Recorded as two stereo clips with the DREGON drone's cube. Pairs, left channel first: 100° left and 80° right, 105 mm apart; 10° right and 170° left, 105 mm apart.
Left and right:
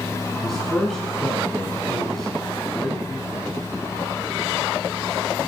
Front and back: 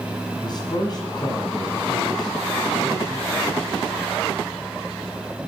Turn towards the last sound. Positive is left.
turn(degrees=15)